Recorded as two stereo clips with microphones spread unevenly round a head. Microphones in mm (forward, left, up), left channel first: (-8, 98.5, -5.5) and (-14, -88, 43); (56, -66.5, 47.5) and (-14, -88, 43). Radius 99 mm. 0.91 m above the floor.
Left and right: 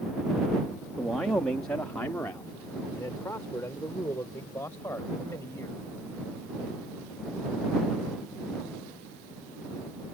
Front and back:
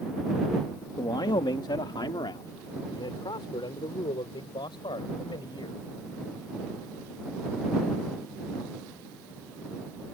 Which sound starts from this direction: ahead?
A man speaking, at 1.0 s.